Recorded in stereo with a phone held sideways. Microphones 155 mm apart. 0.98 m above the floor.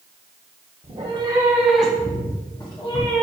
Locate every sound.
0.8 s a cat meowing: 45° right (ahead or behind), 0.8 m; by 3.2 s 35° left (ahead or behind), 1.6 m